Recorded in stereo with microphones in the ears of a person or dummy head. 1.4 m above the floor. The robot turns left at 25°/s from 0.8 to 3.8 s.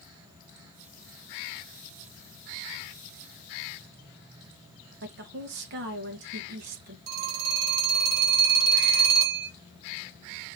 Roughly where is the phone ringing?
Right.